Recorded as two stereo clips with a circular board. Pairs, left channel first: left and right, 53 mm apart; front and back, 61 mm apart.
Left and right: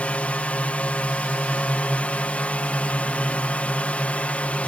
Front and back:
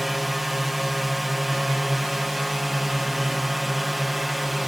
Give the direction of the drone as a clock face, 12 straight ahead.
9 o'clock.